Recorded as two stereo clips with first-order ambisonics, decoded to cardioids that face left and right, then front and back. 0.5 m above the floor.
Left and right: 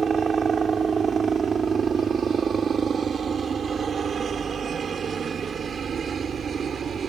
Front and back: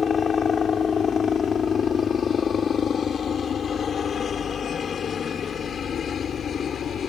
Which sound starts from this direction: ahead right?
A helicopter, at 0.0 s.